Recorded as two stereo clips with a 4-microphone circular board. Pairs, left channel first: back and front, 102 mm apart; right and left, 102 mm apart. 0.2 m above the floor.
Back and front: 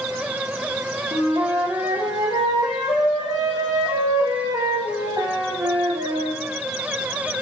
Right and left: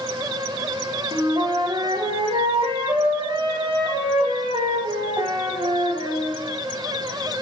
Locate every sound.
1.1 s a flute: 55° left, 3.5 m